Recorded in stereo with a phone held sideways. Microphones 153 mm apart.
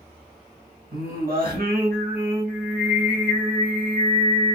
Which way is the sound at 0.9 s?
80° right.